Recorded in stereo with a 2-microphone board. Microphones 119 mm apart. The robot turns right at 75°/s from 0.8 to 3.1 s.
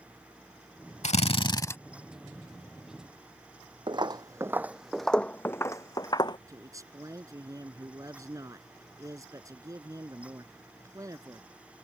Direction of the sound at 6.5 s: 25° right (ahead or behind).